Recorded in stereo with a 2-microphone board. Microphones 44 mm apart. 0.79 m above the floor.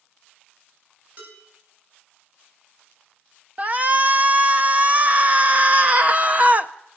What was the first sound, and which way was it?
Dishes clattering, 50° right (ahead or behind).